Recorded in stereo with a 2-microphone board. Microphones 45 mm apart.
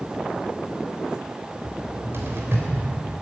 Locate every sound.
1.6 s a cupboard door: 55° right (ahead or behind), 3 m